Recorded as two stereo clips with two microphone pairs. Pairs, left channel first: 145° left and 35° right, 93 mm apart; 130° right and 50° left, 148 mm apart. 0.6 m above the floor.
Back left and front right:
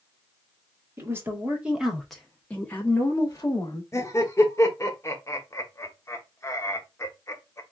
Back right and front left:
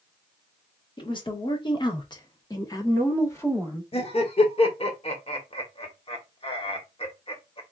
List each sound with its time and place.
1.0 s a woman speaking: 85° right, 1.3 m; by 3.8 s 160° left, 1.3 m
3.9 s laughter: 165° right, 1.1 m